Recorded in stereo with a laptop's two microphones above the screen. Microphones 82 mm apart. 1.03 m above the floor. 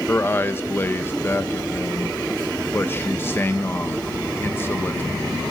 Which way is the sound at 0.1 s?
25° left (ahead or behind).